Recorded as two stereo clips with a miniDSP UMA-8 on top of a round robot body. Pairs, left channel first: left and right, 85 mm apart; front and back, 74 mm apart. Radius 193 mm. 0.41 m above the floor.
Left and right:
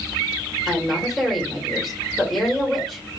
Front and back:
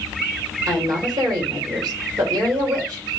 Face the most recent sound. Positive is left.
turn(degrees=175)